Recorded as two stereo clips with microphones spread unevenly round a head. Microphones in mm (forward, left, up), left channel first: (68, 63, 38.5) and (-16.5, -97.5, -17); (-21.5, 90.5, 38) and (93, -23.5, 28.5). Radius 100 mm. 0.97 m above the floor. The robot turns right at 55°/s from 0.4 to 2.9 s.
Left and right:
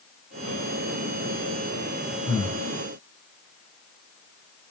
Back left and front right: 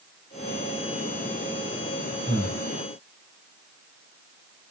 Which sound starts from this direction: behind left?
Breathing, at 2.3 s.